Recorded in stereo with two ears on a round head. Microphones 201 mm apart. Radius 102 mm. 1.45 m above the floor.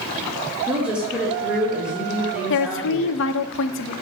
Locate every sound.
0.7 s a woman speaking: 5° right (ahead or behind), 1.6 m
2.5 s a woman speaking: 60° left (ahead or behind), 0.5 m